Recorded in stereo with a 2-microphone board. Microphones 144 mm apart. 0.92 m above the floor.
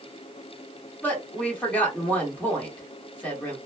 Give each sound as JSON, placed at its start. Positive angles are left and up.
{"t": 1.0, "sound": "a woman speaking", "side_deg": 10, "distance_m": 1.4}